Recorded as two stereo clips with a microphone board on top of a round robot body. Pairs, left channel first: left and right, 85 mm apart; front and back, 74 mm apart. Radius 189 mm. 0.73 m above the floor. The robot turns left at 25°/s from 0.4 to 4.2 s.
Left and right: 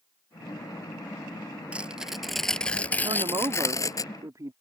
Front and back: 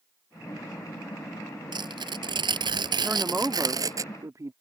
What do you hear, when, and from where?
1.7 s tearing paper: 165° right; by 4.0 s 135° left
3.0 s a woman speaking: 110° right; by 4.5 s 140° right